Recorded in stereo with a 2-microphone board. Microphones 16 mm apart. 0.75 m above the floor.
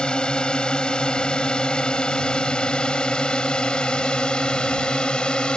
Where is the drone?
65° left (ahead or behind); by 5.6 s 70° left (ahead or behind).